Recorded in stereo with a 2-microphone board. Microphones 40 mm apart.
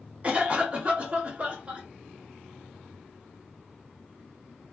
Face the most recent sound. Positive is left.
turn(degrees=-30)  # may be behind; listen again after turning